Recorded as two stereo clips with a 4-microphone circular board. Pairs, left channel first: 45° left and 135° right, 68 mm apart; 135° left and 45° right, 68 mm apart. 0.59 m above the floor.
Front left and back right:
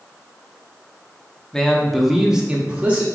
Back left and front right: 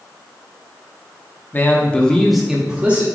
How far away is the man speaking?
About 0.9 m.